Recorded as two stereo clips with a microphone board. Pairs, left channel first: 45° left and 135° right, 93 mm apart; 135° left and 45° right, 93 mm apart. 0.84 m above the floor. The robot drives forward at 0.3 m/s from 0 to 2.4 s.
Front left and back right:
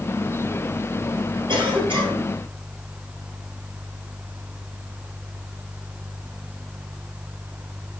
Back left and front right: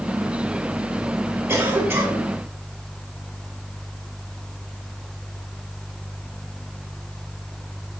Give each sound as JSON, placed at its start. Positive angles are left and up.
{"t": 1.5, "sound": "a cough", "azimuth_deg": -110, "distance_m": 4.0}